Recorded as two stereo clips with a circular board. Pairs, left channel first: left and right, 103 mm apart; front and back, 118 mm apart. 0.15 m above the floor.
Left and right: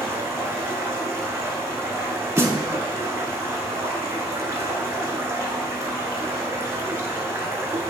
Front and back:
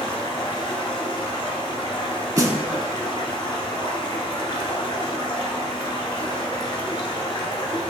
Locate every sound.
0.0 s running water: 35° right, 0.9 m
2.4 s a snare drum: 140° right, 0.6 m